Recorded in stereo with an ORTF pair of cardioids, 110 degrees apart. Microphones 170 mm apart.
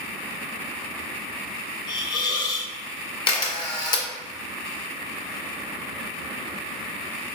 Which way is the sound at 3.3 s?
25° left.